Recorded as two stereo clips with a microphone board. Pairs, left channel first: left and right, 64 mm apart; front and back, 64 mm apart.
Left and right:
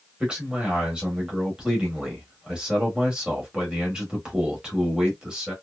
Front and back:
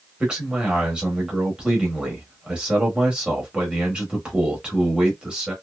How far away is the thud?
No thud in this recording.